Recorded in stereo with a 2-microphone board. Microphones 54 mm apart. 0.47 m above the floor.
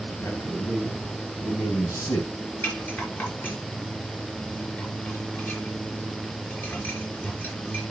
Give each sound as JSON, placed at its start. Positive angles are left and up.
{"t": 0.2, "sound": "a man speaking", "side_deg": 70, "distance_m": 4.0}
{"t": 2.6, "sound": "a rattle", "side_deg": 40, "distance_m": 5.0}